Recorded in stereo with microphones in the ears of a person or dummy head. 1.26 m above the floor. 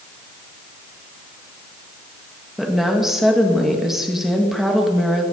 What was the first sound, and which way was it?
A woman speaking, 5° right (ahead or behind).